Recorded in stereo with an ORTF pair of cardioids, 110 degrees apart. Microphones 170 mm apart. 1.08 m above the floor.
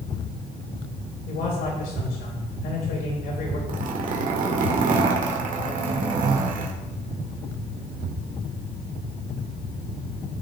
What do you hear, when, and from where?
1.3 s a man speaking: 65° left, 4 m
3.7 s a zipper: 55° right, 1.7 m